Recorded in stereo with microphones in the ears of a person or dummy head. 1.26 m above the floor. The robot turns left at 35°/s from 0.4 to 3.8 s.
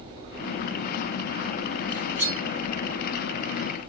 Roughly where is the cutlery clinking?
Right.